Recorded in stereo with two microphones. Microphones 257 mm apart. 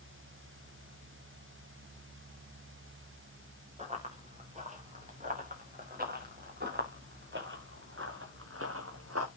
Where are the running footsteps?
25° right (ahead or behind), 5 m; by 9.3 s 65° right (ahead or behind), 2.5 m.